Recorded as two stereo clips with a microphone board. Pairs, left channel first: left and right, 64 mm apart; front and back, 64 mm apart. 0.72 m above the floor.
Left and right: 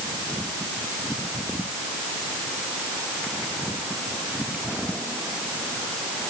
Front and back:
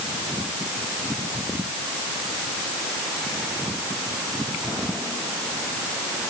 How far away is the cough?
I don't hear a cough.